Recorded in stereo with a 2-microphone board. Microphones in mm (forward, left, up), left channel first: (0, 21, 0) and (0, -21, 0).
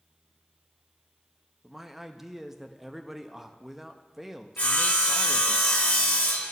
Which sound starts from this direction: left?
Sawing, at 4.6 s.